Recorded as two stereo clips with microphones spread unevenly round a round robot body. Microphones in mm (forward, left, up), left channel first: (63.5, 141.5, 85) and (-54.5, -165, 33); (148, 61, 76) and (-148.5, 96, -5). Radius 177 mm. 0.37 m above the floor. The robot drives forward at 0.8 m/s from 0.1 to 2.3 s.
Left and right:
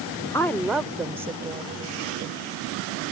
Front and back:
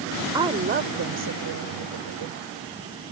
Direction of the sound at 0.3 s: 160° left.